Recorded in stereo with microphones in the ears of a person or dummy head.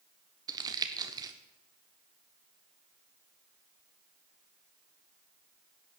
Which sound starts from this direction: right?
Crumpling, at 0.5 s.